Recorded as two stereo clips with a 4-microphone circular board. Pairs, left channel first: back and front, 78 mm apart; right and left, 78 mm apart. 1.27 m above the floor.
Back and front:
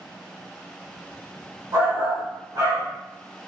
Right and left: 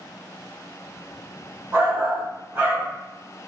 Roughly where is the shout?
Ahead left.